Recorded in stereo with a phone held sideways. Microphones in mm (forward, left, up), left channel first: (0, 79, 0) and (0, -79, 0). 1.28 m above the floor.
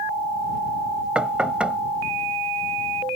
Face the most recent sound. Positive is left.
turn(degrees=-5)  # may be behind; listen again after turning